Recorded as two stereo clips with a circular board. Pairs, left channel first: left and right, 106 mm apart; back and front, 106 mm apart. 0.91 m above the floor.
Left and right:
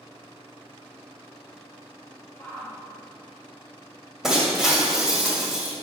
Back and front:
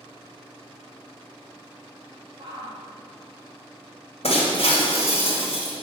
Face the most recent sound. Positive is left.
turn(degrees=-175)